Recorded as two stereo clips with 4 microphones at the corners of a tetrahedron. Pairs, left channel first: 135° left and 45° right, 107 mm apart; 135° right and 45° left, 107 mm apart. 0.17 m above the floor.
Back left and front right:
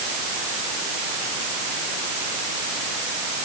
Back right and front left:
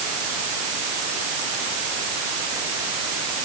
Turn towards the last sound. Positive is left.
No sound to turn to.